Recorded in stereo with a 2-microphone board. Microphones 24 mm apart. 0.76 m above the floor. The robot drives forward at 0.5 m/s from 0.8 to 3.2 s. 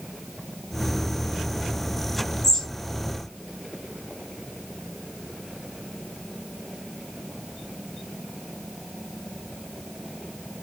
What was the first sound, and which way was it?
A bird, 20° left (ahead or behind).